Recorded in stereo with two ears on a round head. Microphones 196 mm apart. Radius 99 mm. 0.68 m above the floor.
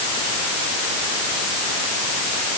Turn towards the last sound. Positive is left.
No sound to turn to.